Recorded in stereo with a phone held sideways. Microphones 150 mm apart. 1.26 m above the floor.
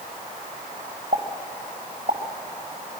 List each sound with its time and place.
1.1 s a pop: 65° right (ahead or behind), 2 m